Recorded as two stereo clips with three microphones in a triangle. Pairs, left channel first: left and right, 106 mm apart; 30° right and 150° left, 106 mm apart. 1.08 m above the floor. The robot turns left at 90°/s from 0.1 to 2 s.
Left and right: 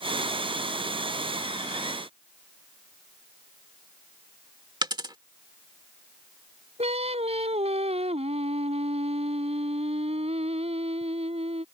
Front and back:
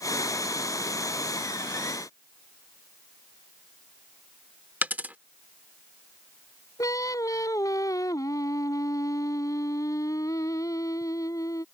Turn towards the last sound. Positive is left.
turn(degrees=-85)